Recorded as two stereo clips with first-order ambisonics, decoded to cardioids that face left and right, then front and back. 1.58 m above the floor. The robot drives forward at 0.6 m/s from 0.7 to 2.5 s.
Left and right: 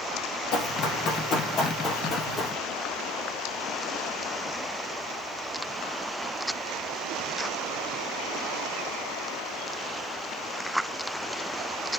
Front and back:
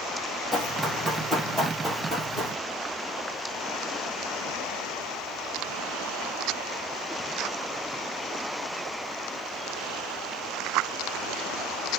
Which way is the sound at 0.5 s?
100° left.